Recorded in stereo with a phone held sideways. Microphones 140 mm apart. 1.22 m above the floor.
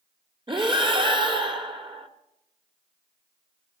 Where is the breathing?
35° right (ahead or behind), 1.9 m.